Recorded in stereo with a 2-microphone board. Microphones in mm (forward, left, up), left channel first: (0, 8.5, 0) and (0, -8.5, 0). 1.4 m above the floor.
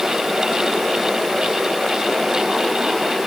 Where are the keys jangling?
I don't hear keys jangling.